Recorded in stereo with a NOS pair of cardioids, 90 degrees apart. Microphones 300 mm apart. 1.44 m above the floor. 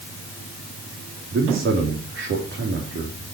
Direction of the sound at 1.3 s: 45° right.